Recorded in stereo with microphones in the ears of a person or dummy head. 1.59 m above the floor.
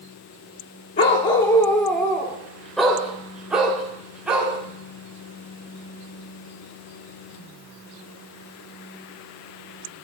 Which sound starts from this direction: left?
A dog barking, at 1.0 s.